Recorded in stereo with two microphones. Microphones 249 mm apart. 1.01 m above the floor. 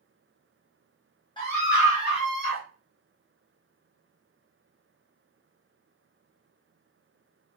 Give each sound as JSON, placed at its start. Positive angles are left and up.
{"t": 1.4, "sound": "a scream", "side_deg": 20, "distance_m": 0.5}